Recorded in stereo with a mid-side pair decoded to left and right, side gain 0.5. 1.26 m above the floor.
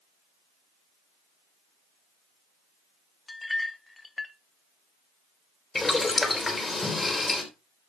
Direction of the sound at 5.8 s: 20° left.